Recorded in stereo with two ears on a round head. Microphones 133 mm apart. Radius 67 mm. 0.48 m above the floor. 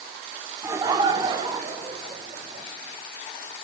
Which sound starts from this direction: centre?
Laughter, at 0.6 s.